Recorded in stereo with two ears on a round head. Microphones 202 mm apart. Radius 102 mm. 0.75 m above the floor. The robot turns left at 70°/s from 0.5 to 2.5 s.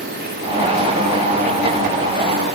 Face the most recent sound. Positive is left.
No sound to turn to.